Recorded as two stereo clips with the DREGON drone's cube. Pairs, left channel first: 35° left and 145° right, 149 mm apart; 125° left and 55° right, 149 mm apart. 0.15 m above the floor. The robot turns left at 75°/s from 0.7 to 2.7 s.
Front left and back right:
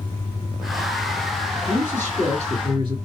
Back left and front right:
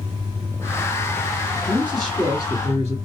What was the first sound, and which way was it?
A man speaking, 120° right.